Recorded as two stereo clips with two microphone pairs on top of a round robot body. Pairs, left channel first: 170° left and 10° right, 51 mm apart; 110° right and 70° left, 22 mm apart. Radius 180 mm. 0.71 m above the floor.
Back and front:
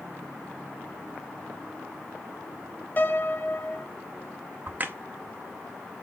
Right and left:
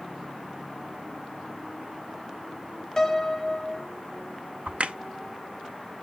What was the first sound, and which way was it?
A piano, 170° left.